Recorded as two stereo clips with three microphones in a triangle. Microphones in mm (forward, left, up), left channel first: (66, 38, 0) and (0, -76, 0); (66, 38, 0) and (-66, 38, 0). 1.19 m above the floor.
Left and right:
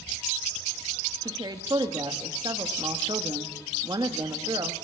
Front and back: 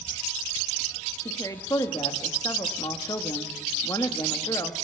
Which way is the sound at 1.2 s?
60° right.